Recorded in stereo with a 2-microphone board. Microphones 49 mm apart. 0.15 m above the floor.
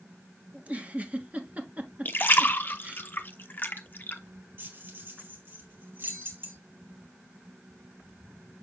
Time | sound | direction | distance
0.5 | a giggle | 30° right (ahead or behind) | 1.2 m
2.0 | a splash | 45° left (ahead or behind) | 0.7 m
4.6 | keys jangling | 50° right (ahead or behind) | 2 m